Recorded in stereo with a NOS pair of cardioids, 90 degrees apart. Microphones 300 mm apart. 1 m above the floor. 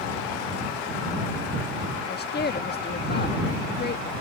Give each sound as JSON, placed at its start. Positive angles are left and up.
{"t": 2.1, "sound": "a woman speaking", "azimuth_deg": 35}